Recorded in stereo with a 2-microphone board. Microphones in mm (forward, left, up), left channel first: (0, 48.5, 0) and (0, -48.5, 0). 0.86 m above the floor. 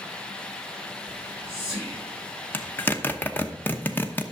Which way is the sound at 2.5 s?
20° left (ahead or behind).